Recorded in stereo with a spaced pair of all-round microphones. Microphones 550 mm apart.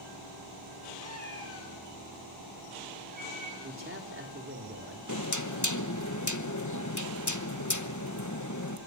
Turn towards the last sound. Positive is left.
turn(degrees=30)  # may be behind; listen again after turning